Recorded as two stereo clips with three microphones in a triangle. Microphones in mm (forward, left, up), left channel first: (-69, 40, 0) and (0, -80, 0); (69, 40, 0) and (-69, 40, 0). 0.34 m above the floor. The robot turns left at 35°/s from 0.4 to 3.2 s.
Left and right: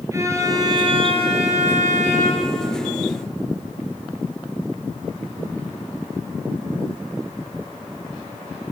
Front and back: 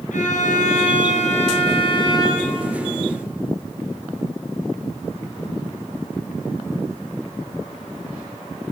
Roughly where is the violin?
Ahead.